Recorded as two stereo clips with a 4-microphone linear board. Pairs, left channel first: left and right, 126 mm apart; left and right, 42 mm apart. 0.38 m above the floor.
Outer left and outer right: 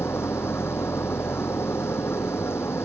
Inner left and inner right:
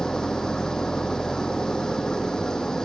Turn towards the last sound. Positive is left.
turn(degrees=20)  # may be behind; listen again after turning